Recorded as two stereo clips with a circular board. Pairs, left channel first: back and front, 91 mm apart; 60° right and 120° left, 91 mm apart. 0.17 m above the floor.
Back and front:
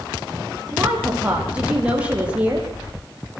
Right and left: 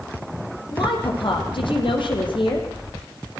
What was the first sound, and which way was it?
A woman speaking, 75° right.